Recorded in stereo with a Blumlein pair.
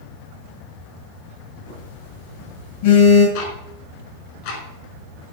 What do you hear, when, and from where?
1.7 s a phone buzzing: 60° left, 8 m
3.4 s ticking: 45° left, 5 m